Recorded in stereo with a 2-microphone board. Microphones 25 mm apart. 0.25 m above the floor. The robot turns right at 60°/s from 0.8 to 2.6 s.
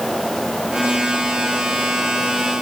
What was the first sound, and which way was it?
Only background noise.